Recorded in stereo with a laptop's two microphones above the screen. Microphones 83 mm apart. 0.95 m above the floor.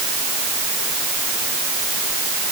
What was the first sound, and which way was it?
Only background noise.